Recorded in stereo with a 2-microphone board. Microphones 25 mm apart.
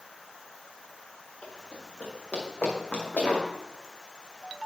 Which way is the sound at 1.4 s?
55° left (ahead or behind).